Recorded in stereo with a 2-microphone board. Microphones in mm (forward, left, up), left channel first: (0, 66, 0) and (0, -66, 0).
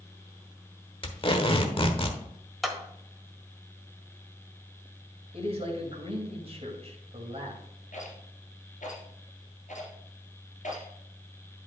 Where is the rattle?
75° left (ahead or behind), 2.5 m.